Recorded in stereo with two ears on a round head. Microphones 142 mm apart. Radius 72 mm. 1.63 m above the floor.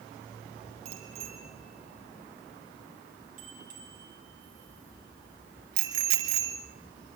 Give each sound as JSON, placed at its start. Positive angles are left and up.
{"t": 0.8, "sound": "a bicycle bell", "side_deg": -40, "distance_m": 7.5}